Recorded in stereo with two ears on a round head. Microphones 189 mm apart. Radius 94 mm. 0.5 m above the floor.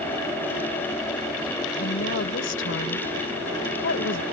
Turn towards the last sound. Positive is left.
turn(degrees=60)  # may be behind; listen again after turning